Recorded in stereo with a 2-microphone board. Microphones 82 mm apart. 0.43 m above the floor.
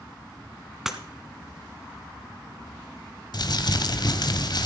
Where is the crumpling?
55° left (ahead or behind), 1.0 m.